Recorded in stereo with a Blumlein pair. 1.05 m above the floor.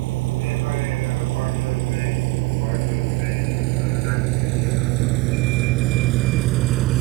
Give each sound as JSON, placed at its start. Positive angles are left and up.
{"t": 0.0, "sound": "a vehicle", "azimuth_deg": -50}